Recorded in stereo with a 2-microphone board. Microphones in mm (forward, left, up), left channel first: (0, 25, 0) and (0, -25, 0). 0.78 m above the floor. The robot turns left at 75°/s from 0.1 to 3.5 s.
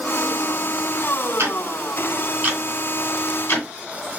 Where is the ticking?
75° right (ahead or behind), 2 m; by 4.2 s 55° left (ahead or behind), 2 m.